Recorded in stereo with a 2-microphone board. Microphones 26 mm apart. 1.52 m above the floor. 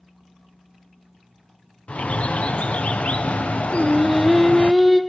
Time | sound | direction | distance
1.9 | a bird | 60° left (ahead or behind) | 0.7 m
3.7 | singing | 5° right (ahead or behind) | 1.1 m